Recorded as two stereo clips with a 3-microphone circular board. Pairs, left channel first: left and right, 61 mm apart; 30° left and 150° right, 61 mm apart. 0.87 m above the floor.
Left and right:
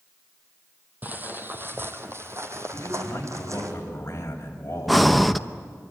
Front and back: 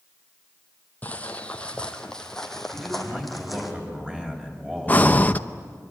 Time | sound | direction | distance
1.0 | footsteps | 35° right | 2.0 m
2.7 | a man speaking | 140° left | 6 m
4.9 | breathing | 5° left | 0.7 m